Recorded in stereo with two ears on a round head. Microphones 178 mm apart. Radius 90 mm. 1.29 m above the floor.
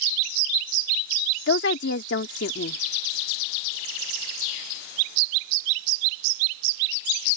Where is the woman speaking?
60° left (ahead or behind).